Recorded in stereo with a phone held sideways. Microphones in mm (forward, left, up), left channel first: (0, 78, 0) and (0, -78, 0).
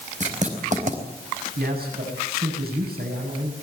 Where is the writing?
50° right (ahead or behind), 5 m.